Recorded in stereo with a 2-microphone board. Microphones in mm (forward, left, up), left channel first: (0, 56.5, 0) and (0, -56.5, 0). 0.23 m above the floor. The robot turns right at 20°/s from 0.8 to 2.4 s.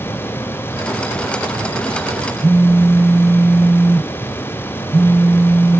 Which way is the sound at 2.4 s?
25° right (ahead or behind).